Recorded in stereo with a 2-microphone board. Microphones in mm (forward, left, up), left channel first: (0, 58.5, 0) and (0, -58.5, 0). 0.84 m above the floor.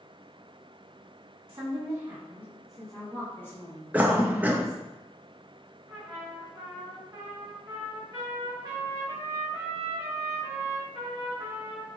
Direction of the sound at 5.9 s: 30° right (ahead or behind).